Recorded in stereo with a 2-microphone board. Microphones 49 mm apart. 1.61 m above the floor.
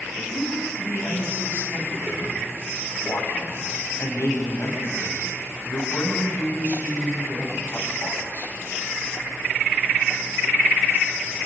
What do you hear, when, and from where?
0.1 s a woman speaking: 50° left (ahead or behind), 9 m